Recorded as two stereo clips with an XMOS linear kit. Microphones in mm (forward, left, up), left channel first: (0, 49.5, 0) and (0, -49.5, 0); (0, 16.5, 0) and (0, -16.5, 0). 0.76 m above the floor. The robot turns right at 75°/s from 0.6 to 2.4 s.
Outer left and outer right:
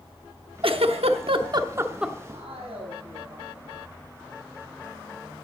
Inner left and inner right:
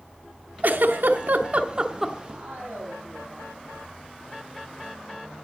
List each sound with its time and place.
0.6 s a giggle: 65° right (ahead or behind), 0.9 m; by 2.1 s centre (ahead or behind), 0.9 m
2.3 s a man speaking: 70° right (ahead or behind), 6.5 m; by 3.8 s 75° right (ahead or behind), 6.5 m